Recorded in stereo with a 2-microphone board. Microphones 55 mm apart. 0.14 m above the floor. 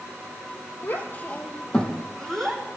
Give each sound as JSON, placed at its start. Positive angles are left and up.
{"t": 0.8, "sound": "a child speaking", "side_deg": 40, "distance_m": 2.0}